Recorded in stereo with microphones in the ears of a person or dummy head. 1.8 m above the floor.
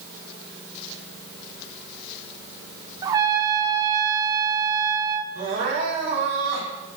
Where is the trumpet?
25° right (ahead or behind), 0.5 m.